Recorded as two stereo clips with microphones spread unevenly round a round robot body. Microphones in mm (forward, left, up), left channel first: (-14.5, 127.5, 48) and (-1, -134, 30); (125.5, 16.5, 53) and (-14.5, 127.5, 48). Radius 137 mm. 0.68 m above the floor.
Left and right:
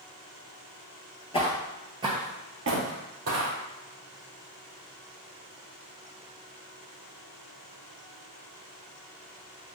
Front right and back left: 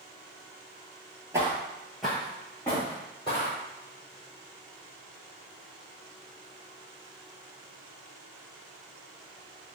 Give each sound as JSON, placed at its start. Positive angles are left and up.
{"t": 1.3, "sound": "footsteps", "azimuth_deg": 85, "distance_m": 0.7}